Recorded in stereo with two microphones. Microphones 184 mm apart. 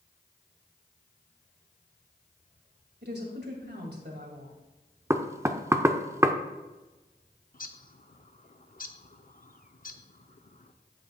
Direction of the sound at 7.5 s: 50° left (ahead or behind).